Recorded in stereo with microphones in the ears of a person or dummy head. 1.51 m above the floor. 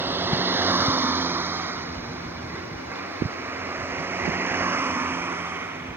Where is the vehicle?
15° right (ahead or behind).